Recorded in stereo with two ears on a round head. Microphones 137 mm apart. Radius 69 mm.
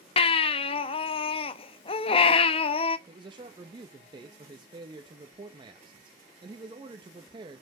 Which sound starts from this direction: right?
A man speaking, at 3.1 s.